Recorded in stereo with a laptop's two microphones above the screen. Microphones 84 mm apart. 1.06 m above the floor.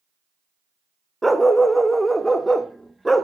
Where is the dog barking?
Centre (ahead or behind), 0.6 m.